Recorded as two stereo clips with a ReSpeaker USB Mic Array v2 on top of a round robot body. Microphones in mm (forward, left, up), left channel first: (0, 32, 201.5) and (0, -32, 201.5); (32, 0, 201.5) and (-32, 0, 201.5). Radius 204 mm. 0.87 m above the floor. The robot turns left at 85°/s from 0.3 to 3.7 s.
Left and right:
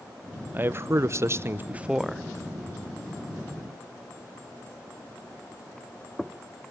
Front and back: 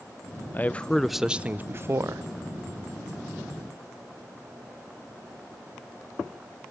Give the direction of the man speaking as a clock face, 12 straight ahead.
1 o'clock.